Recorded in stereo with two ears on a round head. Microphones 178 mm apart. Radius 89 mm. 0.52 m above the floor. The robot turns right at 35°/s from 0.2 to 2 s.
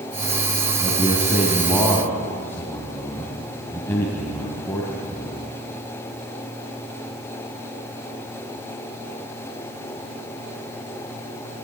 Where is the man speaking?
30° right (ahead or behind), 3.5 m; by 5.4 s 10° left (ahead or behind), 3.5 m.